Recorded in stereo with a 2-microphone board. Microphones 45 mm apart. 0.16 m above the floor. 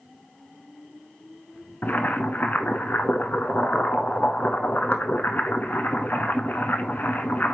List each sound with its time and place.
1.8 s boiling: 40° left (ahead or behind), 0.8 m